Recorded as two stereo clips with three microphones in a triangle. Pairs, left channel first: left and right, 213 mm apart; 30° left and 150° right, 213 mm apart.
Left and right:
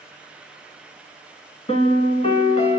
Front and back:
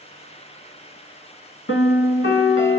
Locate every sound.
1.7 s a piano: 35° left, 0.6 m